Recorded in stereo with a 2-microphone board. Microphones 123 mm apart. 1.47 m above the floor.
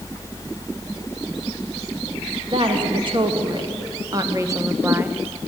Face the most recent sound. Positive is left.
turn(degrees=-10)  # may be behind; listen again after turning